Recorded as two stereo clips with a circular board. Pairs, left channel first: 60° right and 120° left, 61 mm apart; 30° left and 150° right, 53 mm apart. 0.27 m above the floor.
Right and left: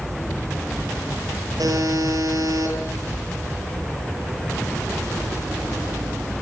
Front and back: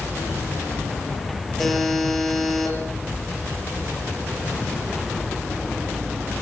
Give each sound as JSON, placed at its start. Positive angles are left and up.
{"t": 1.6, "sound": "a buzzer", "azimuth_deg": 115, "distance_m": 8.0}